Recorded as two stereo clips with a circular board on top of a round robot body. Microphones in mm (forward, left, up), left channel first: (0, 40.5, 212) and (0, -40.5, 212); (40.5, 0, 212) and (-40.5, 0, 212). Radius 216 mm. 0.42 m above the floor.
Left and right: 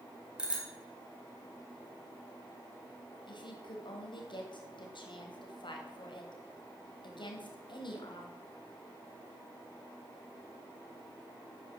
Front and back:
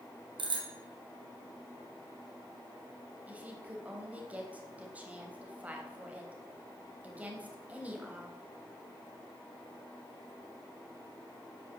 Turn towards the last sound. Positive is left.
turn(degrees=110)